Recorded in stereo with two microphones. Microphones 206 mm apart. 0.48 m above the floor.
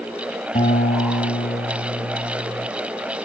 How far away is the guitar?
About 3 m.